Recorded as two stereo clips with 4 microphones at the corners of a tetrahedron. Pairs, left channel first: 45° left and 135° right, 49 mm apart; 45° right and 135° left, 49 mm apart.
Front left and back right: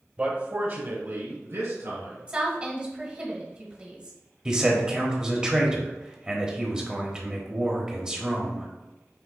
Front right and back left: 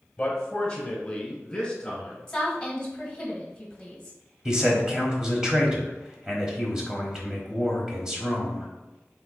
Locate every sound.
0.2 s a man speaking: 105° right, 1.0 m; by 2.2 s 120° right, 2.5 m
2.3 s a woman speaking: 105° right, 1.3 m
4.5 s a man speaking: straight behind, 0.9 m